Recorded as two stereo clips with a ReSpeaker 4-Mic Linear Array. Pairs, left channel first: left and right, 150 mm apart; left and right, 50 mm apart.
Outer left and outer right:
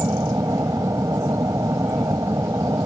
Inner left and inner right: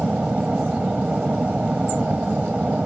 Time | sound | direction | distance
0.0 | an aircraft | 20° right (ahead or behind) | ?